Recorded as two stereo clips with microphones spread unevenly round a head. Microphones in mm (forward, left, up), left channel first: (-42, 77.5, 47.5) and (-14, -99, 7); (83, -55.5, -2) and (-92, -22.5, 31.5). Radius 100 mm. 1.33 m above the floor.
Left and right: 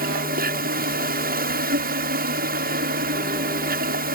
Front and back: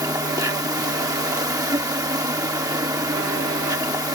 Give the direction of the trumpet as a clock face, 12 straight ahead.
No trumpet in this recording.